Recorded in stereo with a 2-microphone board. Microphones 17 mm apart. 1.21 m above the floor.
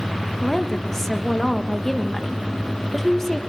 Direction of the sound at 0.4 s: 15° left (ahead or behind).